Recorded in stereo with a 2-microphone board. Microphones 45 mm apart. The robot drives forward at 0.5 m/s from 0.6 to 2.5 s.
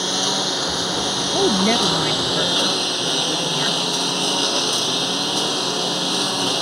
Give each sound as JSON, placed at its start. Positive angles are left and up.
{"t": 0.0, "sound": "a lawn mower", "side_deg": -5}
{"t": 1.3, "sound": "a woman speaking", "side_deg": 45}